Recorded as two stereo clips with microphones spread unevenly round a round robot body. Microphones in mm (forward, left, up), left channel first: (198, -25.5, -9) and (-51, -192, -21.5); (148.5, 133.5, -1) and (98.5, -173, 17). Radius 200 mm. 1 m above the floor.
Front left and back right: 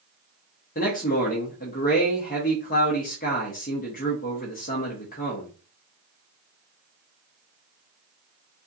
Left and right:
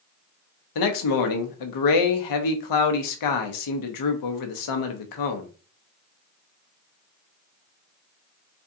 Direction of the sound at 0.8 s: 105° left.